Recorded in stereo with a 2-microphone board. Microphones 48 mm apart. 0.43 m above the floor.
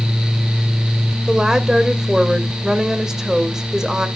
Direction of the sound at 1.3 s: 15° right (ahead or behind).